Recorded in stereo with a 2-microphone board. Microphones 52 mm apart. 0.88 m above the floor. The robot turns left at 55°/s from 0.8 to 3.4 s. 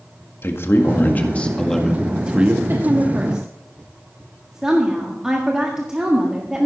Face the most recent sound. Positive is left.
turn(degrees=-170)